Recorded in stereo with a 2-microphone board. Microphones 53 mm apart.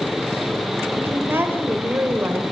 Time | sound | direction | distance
0.9 | a woman speaking | 45° right (ahead or behind) | 2.5 m